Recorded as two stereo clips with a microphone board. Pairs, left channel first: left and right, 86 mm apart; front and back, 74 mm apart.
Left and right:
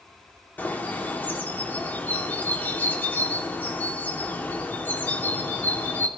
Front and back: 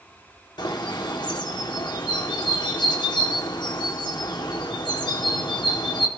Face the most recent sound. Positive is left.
turn(degrees=20)